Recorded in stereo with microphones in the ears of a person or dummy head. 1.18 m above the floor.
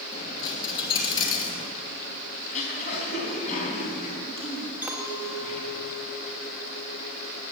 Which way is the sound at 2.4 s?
45° left (ahead or behind).